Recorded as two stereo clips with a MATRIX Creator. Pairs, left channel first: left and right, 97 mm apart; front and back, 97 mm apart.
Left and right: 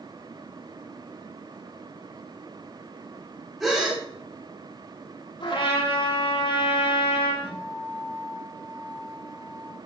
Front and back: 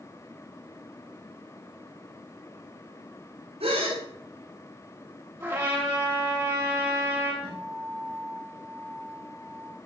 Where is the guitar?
160° left, 9.5 m.